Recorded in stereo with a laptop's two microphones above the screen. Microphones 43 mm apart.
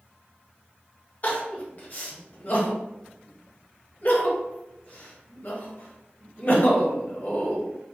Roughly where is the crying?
Left.